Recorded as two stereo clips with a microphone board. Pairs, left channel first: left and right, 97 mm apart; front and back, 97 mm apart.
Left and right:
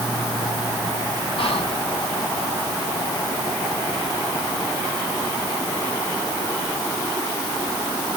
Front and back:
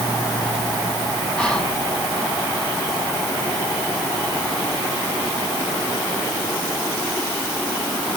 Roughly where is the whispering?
Left.